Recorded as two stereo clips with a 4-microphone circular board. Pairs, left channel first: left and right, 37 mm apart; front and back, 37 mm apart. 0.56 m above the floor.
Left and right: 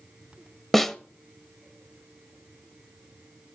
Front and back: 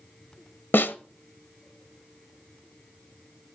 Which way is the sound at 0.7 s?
10° left.